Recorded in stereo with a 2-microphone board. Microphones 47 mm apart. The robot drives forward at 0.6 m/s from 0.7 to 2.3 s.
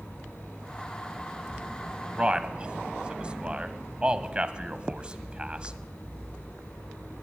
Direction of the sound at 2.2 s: 25° right (ahead or behind).